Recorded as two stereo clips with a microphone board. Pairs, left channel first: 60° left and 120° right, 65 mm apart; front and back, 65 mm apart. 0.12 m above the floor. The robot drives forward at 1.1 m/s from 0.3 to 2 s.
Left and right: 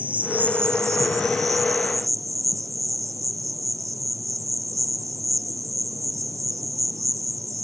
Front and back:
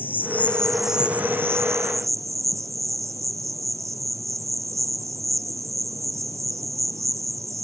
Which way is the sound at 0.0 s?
55° right.